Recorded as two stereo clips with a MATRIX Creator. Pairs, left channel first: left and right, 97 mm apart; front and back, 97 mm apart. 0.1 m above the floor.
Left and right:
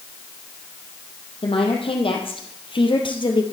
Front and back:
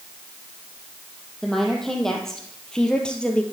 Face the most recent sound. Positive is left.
turn(degrees=75)